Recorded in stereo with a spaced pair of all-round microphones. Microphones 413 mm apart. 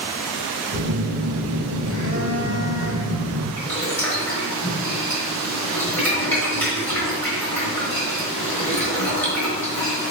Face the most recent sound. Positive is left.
turn(degrees=5)  # may be behind; listen again after turning